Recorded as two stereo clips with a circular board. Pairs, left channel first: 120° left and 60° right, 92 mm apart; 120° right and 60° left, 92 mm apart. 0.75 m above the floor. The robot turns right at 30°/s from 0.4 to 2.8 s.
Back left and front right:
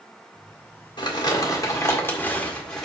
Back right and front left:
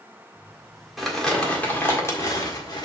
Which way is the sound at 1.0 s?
150° left.